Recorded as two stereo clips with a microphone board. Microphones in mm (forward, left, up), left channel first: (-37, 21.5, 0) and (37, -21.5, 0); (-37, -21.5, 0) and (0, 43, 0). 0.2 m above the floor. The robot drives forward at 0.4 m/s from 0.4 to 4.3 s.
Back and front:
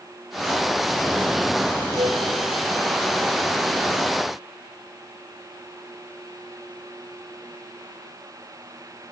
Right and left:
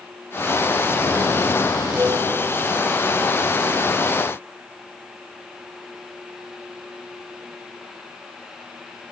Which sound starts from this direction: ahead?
A flute, at 2.0 s.